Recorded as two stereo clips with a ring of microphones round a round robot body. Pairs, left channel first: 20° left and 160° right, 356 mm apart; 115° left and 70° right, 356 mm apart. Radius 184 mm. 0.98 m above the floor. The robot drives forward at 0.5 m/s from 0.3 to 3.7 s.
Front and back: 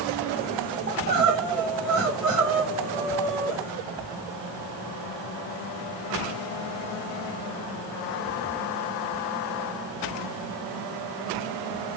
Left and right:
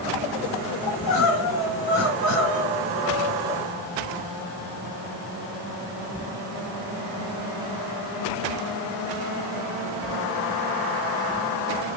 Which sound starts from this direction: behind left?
Crying, at 0.9 s.